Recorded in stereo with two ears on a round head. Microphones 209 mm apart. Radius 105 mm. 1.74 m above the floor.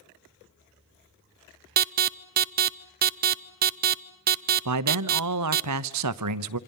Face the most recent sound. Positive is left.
turn(degrees=-85)